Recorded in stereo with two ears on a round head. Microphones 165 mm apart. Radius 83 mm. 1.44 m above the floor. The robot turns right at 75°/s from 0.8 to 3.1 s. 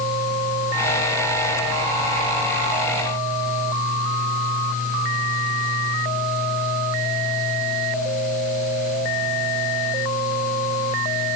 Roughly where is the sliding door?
I don't hear a sliding door.